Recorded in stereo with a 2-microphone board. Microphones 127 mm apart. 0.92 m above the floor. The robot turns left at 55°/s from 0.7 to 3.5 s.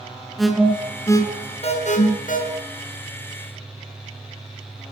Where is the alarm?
Centre (ahead or behind), 7.5 m; by 2.4 s 85° left, 7.5 m.